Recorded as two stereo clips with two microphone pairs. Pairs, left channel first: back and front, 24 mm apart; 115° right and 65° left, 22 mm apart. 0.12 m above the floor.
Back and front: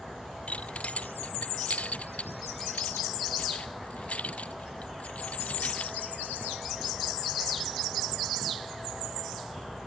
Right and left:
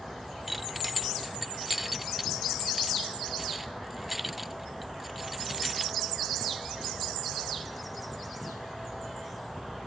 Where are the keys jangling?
150° left.